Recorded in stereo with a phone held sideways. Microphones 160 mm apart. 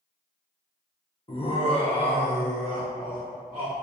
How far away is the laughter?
About 0.6 m.